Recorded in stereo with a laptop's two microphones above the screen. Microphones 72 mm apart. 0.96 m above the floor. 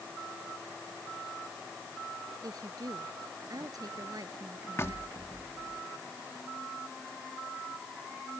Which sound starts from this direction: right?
A woman speaking, at 2.4 s.